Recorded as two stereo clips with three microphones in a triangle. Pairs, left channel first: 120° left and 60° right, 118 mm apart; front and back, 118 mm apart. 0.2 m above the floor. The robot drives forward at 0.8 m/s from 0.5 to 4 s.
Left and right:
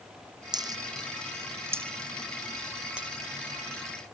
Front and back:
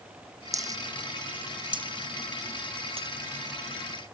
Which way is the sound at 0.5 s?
115° right.